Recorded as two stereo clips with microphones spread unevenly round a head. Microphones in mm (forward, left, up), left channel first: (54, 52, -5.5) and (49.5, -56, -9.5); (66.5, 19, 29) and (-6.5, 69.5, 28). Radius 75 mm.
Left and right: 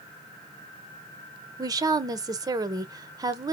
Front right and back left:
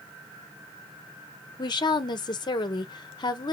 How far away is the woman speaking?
About 0.9 m.